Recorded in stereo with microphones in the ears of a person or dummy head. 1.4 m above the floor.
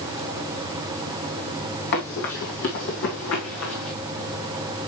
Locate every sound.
1.9 s running footsteps: 50° left (ahead or behind), 3.5 m; by 3.9 s 75° left (ahead or behind), 5 m